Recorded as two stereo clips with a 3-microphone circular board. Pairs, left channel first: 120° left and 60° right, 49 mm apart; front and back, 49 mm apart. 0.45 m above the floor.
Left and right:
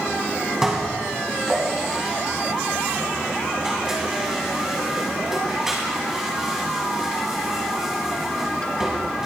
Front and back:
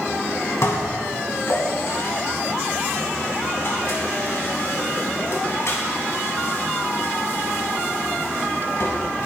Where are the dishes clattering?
20° left, 2.5 m.